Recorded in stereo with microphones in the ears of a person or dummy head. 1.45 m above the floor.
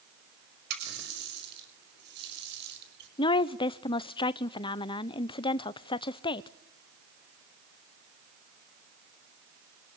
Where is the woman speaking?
25° left (ahead or behind), 0.6 m.